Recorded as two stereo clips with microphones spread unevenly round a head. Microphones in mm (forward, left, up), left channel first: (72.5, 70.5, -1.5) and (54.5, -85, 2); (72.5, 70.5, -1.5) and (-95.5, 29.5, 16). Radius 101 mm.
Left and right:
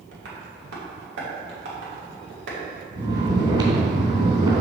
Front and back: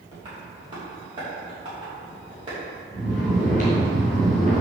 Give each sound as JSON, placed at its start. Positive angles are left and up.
{"t": 0.1, "sound": "tapping", "azimuth_deg": -100, "distance_m": 2.5}
{"t": 3.0, "sound": "snoring", "azimuth_deg": -40, "distance_m": 3.0}